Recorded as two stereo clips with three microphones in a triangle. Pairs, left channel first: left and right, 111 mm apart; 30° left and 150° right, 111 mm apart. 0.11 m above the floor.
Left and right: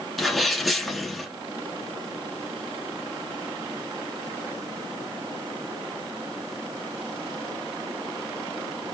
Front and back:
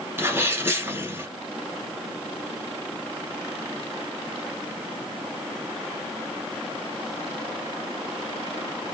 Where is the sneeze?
Straight behind, 1.2 m.